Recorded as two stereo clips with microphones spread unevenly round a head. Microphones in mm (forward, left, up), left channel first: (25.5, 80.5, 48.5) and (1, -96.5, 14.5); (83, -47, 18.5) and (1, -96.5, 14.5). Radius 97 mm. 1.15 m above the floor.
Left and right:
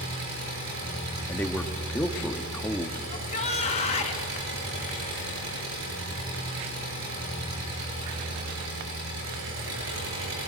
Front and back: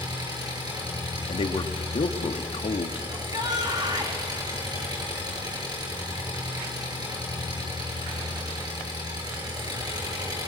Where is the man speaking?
Straight ahead, 1.6 m.